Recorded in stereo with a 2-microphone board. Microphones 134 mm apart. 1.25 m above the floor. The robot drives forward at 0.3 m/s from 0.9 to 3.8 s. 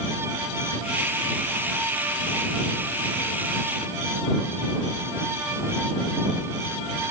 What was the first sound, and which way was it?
Only background noise.